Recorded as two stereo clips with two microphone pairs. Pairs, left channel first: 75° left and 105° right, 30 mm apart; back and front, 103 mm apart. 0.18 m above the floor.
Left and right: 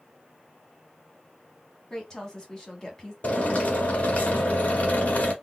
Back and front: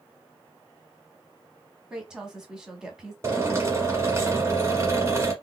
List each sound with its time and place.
1.9 s a woman speaking: 70° left, 1.1 m
3.2 s a drill: 55° left, 1.2 m